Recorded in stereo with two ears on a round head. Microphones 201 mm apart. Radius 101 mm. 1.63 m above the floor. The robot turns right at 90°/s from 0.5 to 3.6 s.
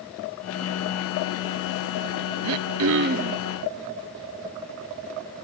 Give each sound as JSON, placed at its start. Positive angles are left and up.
{"t": 2.4, "sound": "throat clearing", "azimuth_deg": -100, "distance_m": 0.6}